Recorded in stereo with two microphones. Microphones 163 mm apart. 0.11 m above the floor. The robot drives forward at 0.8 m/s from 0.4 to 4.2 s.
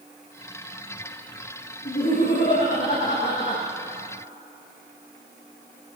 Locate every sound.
1.9 s laughter: 65° left (ahead or behind), 4.5 m; by 3.6 s 50° left (ahead or behind), 5.5 m